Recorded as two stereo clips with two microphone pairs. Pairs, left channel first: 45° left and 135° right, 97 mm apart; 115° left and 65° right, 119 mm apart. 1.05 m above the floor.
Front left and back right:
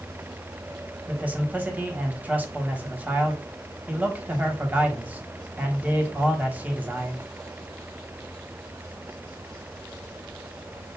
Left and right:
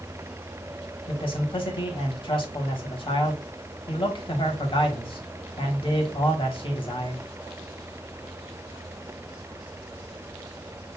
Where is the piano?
I don't hear a piano.